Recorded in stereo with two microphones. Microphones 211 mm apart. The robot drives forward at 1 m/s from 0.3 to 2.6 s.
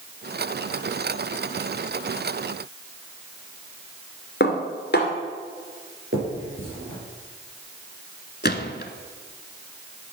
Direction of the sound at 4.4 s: 55° left (ahead or behind).